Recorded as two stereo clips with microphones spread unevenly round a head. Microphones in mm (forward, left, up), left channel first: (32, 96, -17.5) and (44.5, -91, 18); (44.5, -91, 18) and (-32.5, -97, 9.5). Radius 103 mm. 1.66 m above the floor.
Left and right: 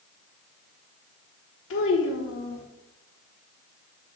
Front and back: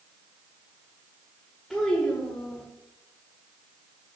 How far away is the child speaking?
About 1.3 m.